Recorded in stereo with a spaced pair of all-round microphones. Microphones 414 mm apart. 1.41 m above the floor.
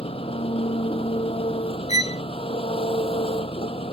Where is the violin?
10° right (ahead or behind).